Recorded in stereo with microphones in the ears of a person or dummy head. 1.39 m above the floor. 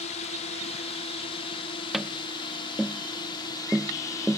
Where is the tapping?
Centre (ahead or behind).